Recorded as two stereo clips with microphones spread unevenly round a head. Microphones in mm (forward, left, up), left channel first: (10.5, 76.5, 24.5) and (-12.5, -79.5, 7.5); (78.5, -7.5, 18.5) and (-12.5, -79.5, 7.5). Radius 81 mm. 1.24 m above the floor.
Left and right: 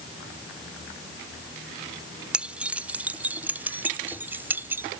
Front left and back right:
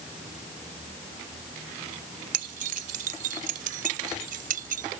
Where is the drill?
No drill in this recording.